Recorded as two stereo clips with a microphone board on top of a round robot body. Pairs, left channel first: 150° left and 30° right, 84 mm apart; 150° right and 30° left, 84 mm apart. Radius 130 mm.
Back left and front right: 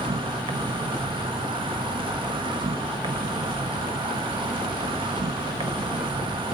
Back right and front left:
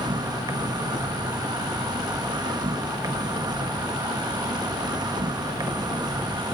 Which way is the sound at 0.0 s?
10° right.